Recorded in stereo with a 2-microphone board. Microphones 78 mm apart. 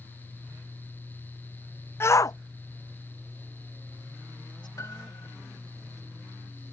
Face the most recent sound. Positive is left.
turn(degrees=45)  # may be behind; listen again after turning